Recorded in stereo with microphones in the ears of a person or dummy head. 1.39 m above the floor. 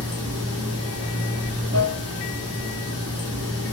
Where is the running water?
25° right (ahead or behind), 1.0 m.